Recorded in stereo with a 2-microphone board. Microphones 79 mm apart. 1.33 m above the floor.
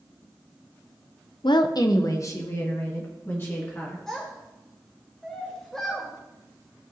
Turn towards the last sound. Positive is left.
turn(degrees=5)  # may be behind; listen again after turning